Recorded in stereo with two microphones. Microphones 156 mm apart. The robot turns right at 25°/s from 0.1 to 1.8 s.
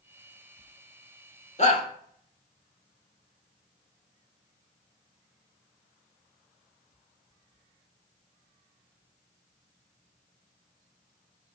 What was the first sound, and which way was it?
A shout, 50° left (ahead or behind).